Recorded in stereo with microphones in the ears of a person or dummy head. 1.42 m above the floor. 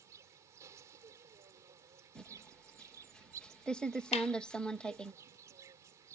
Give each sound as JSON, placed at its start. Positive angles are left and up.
{"t": 0.0, "sound": "an insect", "side_deg": -15}
{"t": 2.1, "sound": "typing on a keyboard", "side_deg": 5}
{"t": 4.1, "sound": "a clap", "side_deg": 40}